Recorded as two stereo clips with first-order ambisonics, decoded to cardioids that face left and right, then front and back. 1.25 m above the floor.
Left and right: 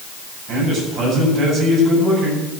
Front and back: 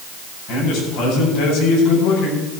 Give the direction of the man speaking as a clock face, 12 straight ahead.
1 o'clock.